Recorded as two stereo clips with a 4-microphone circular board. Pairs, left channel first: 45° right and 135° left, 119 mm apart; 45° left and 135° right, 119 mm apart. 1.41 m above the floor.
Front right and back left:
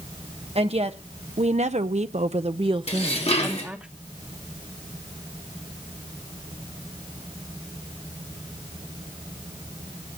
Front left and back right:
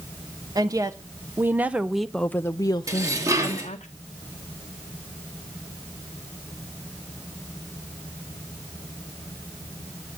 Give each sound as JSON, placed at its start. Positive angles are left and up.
{"t": 0.6, "sound": "a woman speaking", "azimuth_deg": 170, "distance_m": 1.2}
{"t": 2.9, "sound": "dishes clattering", "azimuth_deg": -75, "distance_m": 2.0}